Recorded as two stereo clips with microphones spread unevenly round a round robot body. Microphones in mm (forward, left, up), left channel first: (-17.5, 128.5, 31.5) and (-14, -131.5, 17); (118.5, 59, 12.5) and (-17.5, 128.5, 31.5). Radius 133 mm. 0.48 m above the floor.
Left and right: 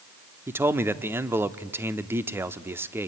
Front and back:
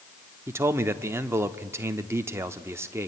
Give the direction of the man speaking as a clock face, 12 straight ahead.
5 o'clock.